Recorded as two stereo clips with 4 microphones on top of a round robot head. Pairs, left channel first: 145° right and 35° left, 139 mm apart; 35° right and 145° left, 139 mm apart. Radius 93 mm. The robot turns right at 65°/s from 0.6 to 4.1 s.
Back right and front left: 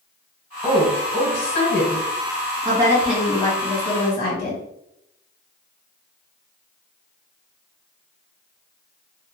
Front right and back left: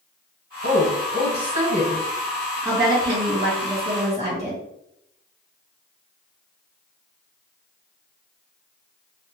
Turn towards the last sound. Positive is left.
turn(degrees=-170)